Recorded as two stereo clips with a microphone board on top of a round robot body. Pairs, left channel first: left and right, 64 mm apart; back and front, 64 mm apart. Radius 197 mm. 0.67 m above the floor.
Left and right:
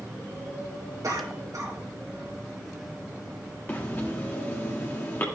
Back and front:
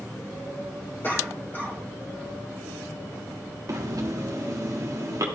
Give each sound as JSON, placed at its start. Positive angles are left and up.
{"t": 1.0, "sound": "a cough", "azimuth_deg": -125, "distance_m": 2.5}
{"t": 3.7, "sound": "breathing", "azimuth_deg": 30, "distance_m": 1.7}